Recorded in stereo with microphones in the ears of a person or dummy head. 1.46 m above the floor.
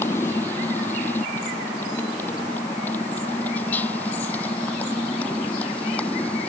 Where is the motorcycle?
10° left (ahead or behind); by 6.5 s 5° left (ahead or behind).